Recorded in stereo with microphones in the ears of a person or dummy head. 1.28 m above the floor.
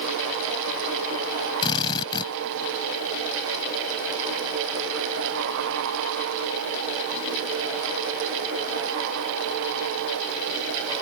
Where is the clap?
I don't hear a clap.